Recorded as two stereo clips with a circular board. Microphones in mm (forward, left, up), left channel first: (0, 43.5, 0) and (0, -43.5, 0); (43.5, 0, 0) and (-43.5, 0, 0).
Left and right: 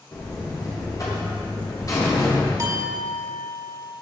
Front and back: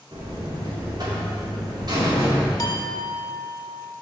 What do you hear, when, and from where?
0.1 s a buzzer: 140° left, 3 m
2.6 s a clink: 40° right, 1.0 m